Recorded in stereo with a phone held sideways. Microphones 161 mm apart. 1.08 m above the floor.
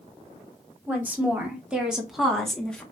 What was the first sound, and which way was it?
A woman speaking, 10° right (ahead or behind).